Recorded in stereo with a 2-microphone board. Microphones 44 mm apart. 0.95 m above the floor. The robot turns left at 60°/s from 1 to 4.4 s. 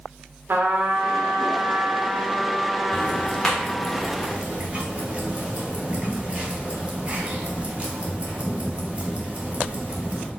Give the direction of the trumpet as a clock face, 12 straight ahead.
2 o'clock.